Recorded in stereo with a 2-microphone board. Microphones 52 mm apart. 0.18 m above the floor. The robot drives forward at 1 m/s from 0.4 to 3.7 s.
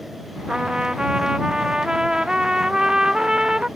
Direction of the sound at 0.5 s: 15° right (ahead or behind).